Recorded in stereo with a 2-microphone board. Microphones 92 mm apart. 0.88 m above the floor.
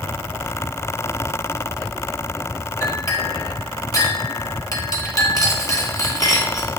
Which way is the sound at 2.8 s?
40° left (ahead or behind).